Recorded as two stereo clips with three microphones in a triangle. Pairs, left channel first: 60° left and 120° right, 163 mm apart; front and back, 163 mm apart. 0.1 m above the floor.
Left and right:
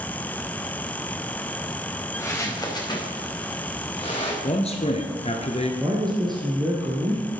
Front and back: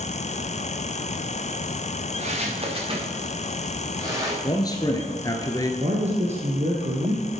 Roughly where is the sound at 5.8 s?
Behind.